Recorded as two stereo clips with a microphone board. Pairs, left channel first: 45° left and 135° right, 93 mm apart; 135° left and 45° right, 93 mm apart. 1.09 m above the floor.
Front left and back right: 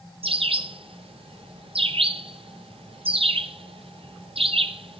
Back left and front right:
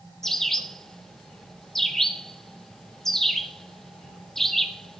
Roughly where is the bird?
Behind right.